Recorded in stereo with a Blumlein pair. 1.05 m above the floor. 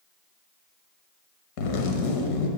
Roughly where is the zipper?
Ahead left.